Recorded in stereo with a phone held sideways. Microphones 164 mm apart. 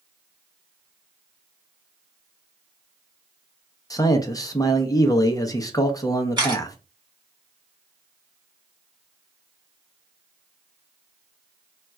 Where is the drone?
I don't hear a drone.